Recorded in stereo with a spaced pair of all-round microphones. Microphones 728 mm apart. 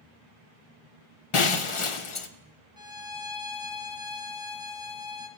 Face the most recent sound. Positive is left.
turn(degrees=30)  # may be behind; listen again after turning